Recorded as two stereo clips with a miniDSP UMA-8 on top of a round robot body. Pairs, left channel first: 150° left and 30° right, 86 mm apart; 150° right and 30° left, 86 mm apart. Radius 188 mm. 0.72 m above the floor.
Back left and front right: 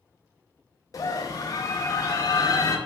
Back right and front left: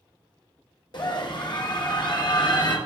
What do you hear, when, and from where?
0.9 s a scream: 165° right, 1.8 m